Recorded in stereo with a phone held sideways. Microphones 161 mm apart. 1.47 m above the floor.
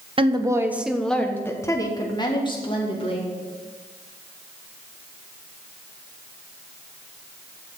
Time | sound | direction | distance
0.2 | a woman speaking | 35° right (ahead or behind) | 0.9 m